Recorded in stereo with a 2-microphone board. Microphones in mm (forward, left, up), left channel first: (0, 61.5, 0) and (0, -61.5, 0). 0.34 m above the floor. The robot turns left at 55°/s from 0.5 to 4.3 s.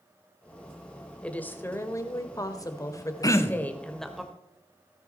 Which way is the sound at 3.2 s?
30° left (ahead or behind).